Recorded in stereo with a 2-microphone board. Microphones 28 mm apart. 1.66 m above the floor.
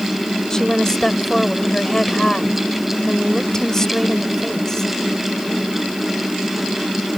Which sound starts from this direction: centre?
A woman speaking, at 0.5 s.